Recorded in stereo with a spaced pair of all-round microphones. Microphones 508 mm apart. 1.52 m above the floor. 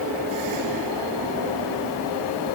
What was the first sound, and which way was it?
Only background noise.